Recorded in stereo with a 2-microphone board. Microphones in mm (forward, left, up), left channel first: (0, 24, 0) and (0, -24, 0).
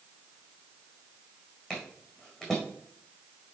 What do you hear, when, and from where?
1.7 s footsteps: 15° left (ahead or behind), 4.5 m